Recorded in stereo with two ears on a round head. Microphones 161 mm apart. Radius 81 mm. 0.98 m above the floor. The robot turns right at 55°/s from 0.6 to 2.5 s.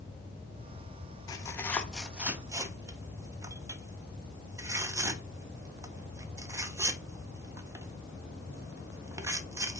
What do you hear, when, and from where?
1.3 s tearing paper: 20° left (ahead or behind), 0.6 m; by 9.8 s 15° right (ahead or behind), 0.6 m